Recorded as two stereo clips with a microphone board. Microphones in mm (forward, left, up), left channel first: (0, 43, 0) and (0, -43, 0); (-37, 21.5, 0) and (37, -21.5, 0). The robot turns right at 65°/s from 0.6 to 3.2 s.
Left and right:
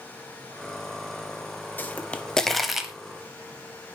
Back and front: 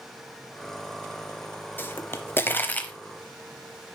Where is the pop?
125° left, 0.8 m; by 2.9 s 160° right, 0.8 m.